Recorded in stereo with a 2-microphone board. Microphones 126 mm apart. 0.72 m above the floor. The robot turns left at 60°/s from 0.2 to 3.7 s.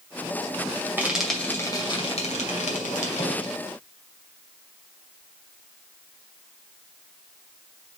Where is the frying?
15° right (ahead or behind), 2 m; by 3.5 s 40° left (ahead or behind), 2 m.